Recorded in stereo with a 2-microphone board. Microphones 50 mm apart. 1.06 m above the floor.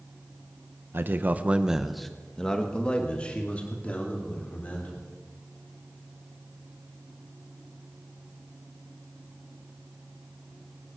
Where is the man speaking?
50° right (ahead or behind), 1.0 m; by 5.0 s 30° left (ahead or behind), 4.5 m.